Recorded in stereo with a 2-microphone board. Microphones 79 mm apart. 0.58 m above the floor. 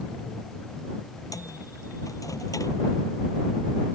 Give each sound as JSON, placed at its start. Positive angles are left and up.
{"t": 1.3, "sound": "a microwave", "side_deg": 45}